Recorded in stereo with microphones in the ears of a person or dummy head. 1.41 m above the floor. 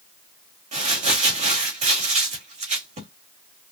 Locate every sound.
0.7 s crumpling: 45° right (ahead or behind), 1.5 m